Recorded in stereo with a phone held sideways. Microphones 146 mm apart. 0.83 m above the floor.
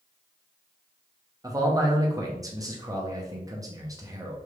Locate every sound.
1.4 s a man speaking: 25° right (ahead or behind), 1.0 m